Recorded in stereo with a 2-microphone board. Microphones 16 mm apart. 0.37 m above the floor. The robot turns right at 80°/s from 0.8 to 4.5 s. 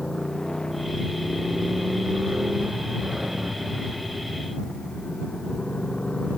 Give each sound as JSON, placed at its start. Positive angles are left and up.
{"t": 0.0, "sound": "a motorcycle", "azimuth_deg": 125}